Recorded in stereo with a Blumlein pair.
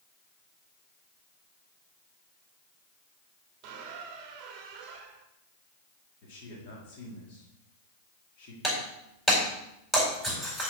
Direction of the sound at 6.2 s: 45° left.